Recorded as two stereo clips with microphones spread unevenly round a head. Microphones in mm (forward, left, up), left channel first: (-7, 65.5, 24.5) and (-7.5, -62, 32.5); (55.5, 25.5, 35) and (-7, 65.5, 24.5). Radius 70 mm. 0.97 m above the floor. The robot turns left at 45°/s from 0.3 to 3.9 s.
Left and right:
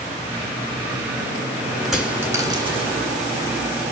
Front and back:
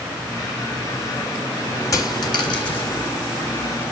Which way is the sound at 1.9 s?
5° right.